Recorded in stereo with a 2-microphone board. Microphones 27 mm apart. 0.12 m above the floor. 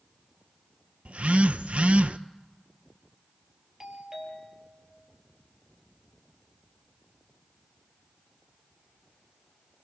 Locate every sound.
1.1 s a phone buzzing: 60° right (ahead or behind), 0.6 m
3.8 s a doorbell: 25° right (ahead or behind), 4 m